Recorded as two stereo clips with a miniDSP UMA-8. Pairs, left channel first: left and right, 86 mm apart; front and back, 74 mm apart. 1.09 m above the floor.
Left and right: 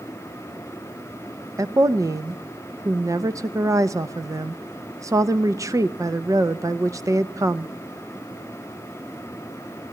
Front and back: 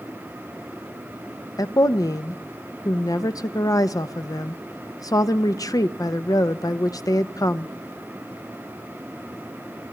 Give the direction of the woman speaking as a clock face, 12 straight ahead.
1 o'clock.